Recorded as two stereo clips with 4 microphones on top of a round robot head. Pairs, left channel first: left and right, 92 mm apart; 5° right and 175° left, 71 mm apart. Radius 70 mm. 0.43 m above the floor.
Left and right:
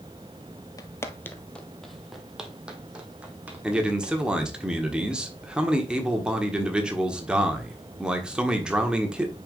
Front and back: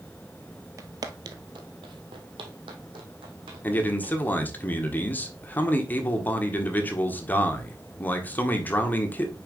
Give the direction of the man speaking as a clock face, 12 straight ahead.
1 o'clock.